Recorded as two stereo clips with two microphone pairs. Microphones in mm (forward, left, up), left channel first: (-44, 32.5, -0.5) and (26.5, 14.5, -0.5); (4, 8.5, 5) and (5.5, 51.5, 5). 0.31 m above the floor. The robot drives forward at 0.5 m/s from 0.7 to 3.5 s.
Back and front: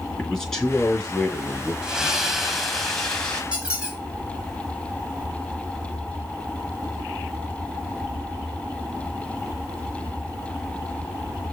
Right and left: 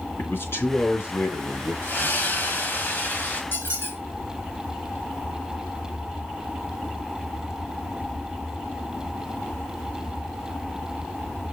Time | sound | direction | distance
0.2 | a man speaking | 115° right | 4 m
1.8 | a splash | 95° right | 2.0 m
3.5 | a squeak | 90° right | 3 m